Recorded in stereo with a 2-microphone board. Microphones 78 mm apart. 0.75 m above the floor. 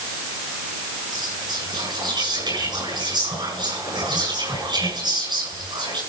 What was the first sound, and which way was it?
Whispering, 70° right (ahead or behind).